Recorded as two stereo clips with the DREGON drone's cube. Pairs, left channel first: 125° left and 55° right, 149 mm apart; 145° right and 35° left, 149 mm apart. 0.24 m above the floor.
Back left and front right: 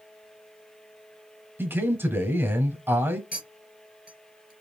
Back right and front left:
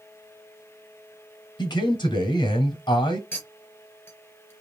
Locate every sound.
1.6 s a man speaking: 120° right, 1.2 m
3.3 s a clink: 140° left, 3 m